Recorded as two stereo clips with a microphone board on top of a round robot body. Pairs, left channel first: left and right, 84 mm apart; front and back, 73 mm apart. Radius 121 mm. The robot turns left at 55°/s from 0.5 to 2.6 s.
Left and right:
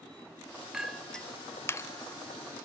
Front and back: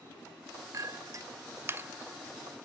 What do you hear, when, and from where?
0.7 s a clink: 170° right, 0.6 m; by 2.6 s 90° left, 0.6 m